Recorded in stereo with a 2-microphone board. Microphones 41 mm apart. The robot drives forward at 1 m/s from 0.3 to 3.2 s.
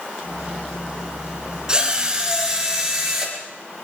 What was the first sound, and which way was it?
A drill, 15° right (ahead or behind).